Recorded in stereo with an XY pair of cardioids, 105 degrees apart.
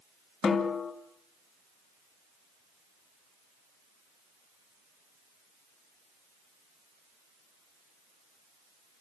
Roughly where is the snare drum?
Ahead left.